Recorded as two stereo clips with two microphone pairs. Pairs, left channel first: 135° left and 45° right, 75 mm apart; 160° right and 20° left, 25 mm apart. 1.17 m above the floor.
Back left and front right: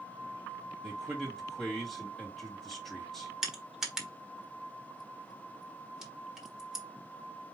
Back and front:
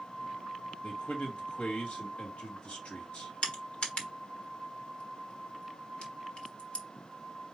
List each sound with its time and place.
0.8 s a man speaking: 135° right, 2 m
3.4 s crushing: 125° right, 1.3 m